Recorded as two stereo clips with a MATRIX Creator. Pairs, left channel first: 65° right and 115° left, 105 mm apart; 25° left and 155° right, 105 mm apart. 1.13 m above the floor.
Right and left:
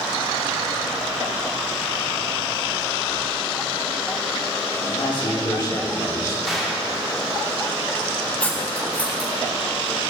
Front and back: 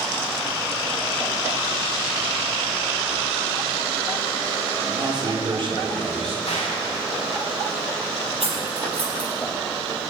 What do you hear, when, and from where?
4.9 s a man speaking: 105° right, 2.0 m; by 6.3 s 130° right, 3 m
6.5 s a gunshot: 25° left, 2.5 m
8.4 s cutlery clinking: 145° right, 3.5 m